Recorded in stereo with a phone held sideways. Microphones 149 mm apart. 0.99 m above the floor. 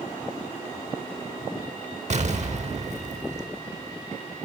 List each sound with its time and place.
2.1 s an explosion: 55° right (ahead or behind), 1.0 m